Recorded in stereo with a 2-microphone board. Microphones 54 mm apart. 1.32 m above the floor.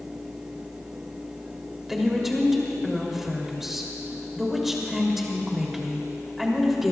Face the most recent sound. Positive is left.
turn(degrees=-5)  # may be behind; listen again after turning